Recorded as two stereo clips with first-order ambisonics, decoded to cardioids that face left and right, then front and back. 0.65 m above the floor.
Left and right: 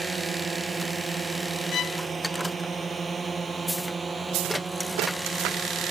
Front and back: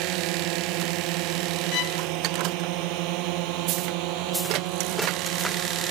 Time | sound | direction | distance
0.0 | a drone | 160° right | ?
1.7 | a violin | 35° left | ?